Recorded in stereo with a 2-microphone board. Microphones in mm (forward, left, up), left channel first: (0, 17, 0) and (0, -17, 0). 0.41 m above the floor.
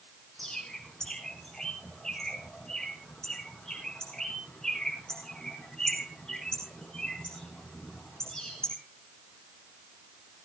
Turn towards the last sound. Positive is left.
turn(degrees=20)  # may be behind; listen again after turning